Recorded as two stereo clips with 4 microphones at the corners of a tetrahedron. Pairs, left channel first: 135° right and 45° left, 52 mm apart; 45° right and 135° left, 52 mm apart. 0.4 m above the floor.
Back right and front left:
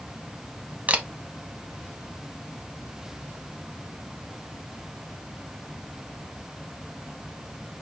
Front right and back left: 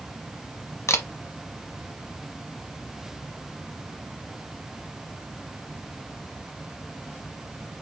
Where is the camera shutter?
20° right, 0.9 m.